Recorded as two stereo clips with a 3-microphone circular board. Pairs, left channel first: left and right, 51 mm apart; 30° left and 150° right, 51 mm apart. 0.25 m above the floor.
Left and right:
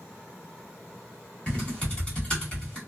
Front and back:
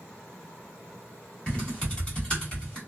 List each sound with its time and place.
1.5 s typing on a keyboard: 65° left, 1.7 m